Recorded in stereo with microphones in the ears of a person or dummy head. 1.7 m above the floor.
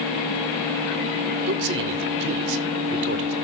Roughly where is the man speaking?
Right.